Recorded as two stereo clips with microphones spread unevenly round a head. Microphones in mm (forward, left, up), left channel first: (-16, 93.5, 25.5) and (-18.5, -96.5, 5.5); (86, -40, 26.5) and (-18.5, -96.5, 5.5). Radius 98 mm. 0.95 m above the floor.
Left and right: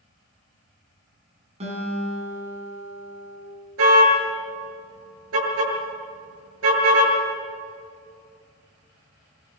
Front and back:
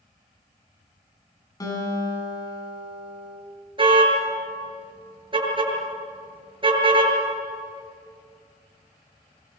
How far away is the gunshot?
I don't hear a gunshot.